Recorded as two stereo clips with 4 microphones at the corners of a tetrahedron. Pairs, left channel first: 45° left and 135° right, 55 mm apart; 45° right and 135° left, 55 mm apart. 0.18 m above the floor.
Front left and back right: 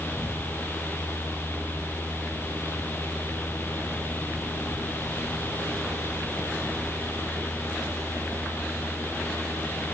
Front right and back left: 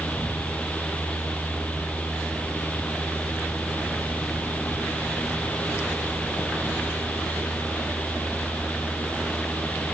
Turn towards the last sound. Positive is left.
No sound to turn to.